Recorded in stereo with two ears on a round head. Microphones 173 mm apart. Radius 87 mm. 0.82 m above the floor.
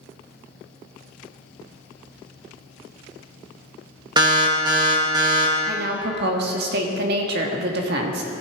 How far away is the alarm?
About 1.8 m.